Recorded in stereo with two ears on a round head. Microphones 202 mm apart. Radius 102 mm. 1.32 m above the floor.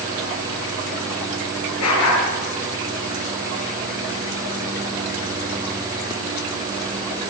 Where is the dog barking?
85° left, 8.5 m.